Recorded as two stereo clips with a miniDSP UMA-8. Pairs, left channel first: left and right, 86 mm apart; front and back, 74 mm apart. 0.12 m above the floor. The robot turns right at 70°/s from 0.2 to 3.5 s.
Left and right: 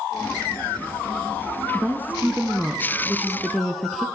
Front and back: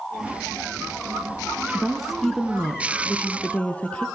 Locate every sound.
1.7 s a woman speaking: 115° right, 1.4 m; by 4.1 s 5° left, 1.4 m